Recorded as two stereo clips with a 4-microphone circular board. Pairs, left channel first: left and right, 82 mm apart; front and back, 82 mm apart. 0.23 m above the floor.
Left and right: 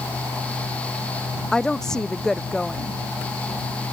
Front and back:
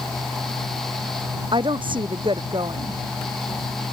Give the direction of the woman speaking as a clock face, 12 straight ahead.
6 o'clock.